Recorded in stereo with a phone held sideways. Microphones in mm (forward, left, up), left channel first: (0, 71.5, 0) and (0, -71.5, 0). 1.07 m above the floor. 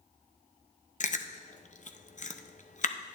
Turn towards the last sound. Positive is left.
turn(degrees=60)  # may be behind; listen again after turning